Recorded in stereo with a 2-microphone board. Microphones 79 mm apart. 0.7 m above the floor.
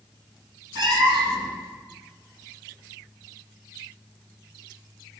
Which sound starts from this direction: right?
A cat meowing, at 0.8 s.